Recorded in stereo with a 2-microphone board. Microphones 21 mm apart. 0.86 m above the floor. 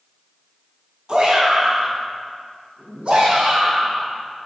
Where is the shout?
50° right (ahead or behind), 5.5 m; by 4.1 s 65° right (ahead or behind), 6 m.